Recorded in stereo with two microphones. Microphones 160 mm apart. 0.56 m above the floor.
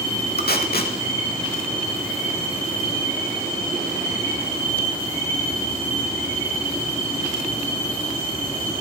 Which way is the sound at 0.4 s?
75° left (ahead or behind).